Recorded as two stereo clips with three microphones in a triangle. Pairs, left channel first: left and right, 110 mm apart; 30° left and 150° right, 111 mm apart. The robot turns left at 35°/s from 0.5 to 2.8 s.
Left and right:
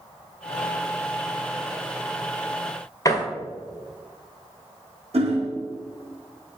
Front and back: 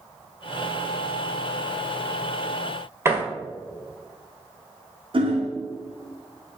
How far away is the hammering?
About 1.9 m.